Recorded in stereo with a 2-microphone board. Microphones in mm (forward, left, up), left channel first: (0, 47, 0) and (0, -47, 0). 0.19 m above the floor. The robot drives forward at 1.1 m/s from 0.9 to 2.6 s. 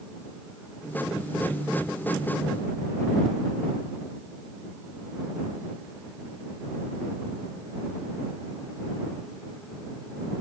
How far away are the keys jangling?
I don't hear keys jangling.